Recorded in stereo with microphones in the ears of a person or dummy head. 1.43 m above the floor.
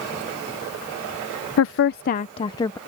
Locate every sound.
1.6 s a woman speaking: 70° left (ahead or behind); by 2.8 s 15° left (ahead or behind)